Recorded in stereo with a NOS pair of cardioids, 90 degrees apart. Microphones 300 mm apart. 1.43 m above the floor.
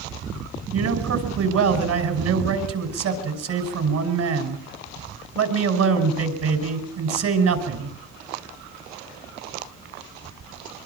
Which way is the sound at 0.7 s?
60° right.